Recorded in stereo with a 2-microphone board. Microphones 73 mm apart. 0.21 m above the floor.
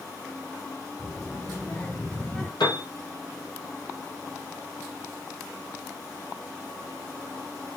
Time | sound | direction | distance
1.0 | a child speaking | 40° left (ahead or behind) | 3.5 m
2.6 | a piano | 80° left | 5 m